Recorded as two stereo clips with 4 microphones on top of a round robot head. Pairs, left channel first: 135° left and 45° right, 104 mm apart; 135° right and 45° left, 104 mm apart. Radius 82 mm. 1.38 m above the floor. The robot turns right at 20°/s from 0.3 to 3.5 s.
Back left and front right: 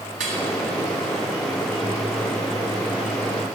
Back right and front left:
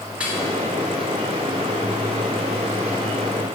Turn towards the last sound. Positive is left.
turn(degrees=25)